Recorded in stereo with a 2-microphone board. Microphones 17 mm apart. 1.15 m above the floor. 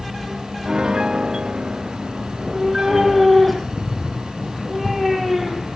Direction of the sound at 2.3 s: 5° left (ahead or behind).